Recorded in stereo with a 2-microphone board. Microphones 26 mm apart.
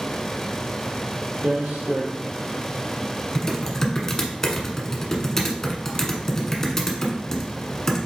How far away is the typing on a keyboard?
About 0.8 m.